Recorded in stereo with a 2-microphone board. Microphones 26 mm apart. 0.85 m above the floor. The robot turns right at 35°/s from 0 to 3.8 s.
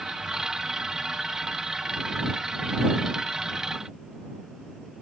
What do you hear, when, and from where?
Only background noise.